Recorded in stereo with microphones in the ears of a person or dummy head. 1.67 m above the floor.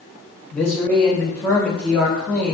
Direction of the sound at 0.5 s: 10° left (ahead or behind).